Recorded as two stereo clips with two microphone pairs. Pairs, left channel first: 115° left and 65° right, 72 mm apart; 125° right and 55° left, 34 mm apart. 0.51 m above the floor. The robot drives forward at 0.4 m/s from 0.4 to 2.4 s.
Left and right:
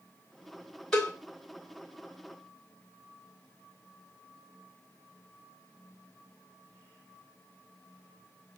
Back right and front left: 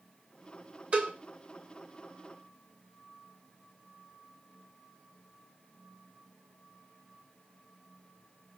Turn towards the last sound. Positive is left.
turn(degrees=60)